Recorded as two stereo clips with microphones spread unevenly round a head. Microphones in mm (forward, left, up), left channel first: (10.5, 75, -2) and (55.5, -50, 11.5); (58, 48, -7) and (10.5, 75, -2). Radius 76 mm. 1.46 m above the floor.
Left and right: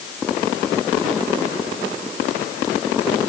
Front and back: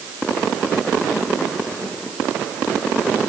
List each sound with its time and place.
Only background noise.